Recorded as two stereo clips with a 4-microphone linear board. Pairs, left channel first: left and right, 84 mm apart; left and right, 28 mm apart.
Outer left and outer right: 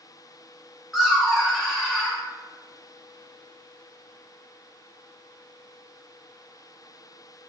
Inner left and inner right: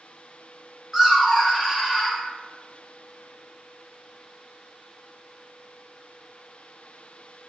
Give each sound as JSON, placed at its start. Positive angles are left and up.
{"t": 0.9, "sound": "laughter", "side_deg": 0, "distance_m": 1.3}